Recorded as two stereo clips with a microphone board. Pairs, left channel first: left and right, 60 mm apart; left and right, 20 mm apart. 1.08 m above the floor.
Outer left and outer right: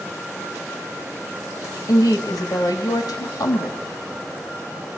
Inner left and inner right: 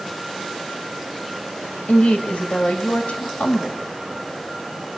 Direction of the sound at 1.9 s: 80° left.